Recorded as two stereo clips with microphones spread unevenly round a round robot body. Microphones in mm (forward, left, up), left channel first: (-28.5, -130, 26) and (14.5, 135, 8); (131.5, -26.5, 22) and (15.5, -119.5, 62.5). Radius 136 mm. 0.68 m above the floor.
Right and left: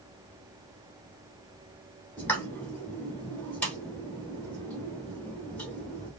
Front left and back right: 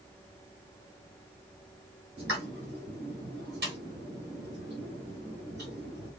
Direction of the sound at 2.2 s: 175° left.